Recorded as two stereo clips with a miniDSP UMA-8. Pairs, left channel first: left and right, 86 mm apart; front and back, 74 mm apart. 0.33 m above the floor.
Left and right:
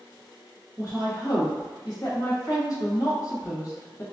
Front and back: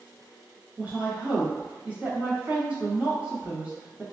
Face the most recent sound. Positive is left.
turn(degrees=115)